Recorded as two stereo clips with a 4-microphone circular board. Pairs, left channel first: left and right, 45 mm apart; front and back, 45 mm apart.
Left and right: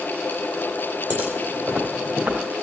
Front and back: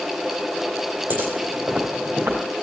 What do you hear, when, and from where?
1.1 s footsteps: 130° right, 3 m; by 2.4 s 135° right, 4 m